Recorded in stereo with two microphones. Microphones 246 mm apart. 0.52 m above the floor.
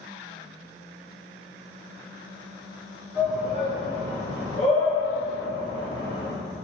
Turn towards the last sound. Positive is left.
turn(degrees=45)  # may be behind; listen again after turning